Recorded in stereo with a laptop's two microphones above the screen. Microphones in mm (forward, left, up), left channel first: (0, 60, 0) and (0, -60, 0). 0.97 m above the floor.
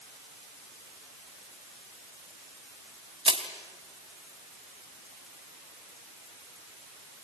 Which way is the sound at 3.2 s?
50° right (ahead or behind).